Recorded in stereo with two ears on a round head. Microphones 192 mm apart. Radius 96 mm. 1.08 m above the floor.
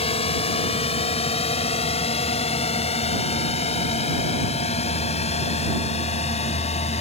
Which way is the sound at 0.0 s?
30° left (ahead or behind).